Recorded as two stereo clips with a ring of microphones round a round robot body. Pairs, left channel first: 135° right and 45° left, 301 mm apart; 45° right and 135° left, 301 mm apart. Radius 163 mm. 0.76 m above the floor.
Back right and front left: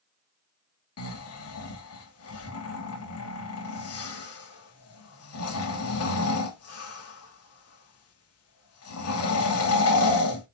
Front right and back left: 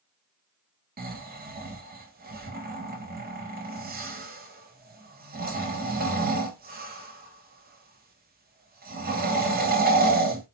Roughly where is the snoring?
Behind.